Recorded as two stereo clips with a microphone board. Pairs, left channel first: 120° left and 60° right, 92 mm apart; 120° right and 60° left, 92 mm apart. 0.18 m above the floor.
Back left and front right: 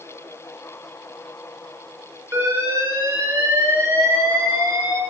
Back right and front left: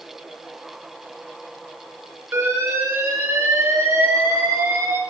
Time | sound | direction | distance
2.3 | an alarm | straight ahead | 4 m